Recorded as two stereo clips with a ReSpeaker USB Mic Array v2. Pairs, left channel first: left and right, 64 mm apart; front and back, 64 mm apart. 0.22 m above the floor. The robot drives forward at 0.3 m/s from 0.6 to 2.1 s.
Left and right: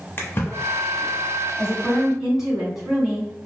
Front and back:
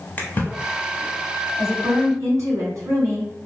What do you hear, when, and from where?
0.2 s a splash: 50° left, 0.8 m; by 1.1 s 65° left, 0.7 m
1.6 s a woman speaking: 165° right, 1.6 m